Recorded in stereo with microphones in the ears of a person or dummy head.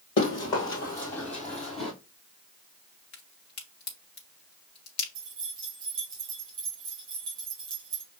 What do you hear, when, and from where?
0.2 s running footsteps: 30° left (ahead or behind), 1.8 m; by 1.9 s centre (ahead or behind), 2 m
3.1 s a crack: 55° left (ahead or behind), 1.1 m
5.2 s keys jangling: 25° right (ahead or behind), 2 m